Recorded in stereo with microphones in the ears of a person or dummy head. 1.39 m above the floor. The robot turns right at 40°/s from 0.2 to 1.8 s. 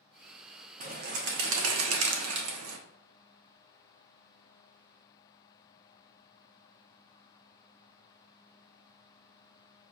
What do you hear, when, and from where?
0.8 s a bird: 145° right, 0.7 m; by 2.8 s 105° right, 0.7 m